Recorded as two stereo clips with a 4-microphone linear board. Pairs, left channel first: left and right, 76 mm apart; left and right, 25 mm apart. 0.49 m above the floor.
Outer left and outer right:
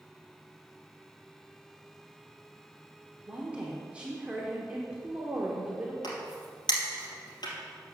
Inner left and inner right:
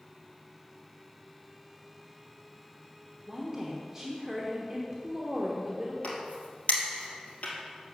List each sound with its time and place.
3.3 s a woman speaking: 15° right (ahead or behind), 1.0 m
6.0 s a crack: 70° left (ahead or behind), 2.5 m